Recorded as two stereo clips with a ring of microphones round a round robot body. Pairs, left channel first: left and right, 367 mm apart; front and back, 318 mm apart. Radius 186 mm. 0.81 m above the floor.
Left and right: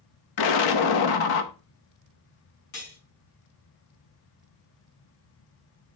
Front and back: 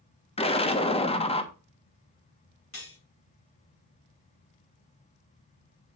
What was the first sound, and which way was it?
An explosion, 70° left.